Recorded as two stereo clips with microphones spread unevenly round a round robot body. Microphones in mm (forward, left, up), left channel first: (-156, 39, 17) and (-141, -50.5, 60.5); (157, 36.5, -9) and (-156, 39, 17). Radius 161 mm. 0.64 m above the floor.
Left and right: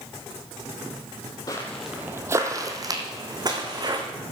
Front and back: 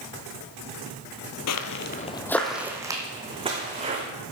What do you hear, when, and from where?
1.5 s footsteps: 10° left, 0.8 m; by 4.0 s 110° right, 3 m